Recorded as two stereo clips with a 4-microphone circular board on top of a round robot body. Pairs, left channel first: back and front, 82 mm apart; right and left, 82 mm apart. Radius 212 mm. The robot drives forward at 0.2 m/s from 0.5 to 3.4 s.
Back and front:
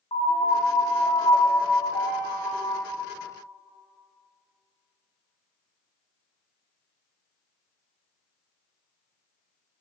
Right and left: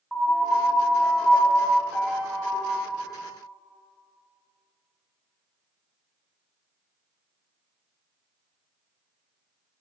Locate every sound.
0.1 s a piano: straight behind, 0.9 m